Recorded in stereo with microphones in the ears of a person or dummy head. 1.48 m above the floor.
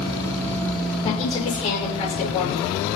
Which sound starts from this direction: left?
A woman speaking, at 1.0 s.